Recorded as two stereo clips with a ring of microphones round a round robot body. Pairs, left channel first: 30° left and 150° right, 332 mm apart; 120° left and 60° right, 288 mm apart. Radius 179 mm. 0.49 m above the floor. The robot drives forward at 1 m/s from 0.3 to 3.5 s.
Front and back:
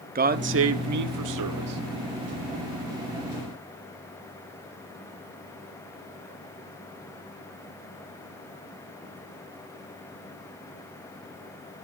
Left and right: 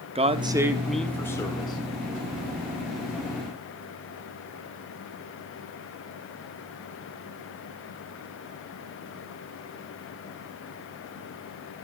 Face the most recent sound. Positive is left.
turn(degrees=-170)